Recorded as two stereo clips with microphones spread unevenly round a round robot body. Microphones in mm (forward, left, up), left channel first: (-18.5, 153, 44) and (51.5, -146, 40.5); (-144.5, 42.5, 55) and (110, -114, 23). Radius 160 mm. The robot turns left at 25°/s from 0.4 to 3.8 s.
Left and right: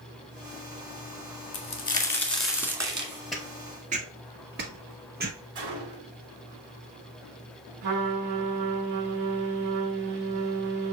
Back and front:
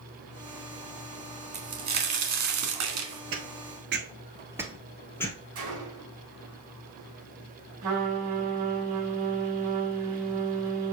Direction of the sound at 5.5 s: 65° right.